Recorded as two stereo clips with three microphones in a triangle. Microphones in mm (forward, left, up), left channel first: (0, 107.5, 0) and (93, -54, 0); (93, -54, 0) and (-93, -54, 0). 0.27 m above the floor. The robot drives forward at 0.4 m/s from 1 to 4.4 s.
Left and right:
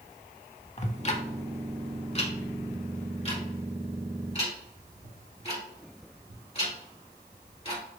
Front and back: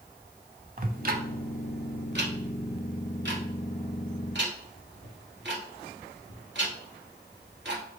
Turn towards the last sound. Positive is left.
turn(degrees=175)